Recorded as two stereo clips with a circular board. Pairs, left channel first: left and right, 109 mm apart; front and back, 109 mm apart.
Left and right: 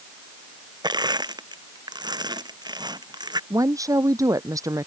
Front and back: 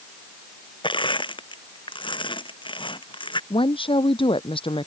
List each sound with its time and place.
0.8 s crushing: 40° right
3.5 s a woman speaking: 30° right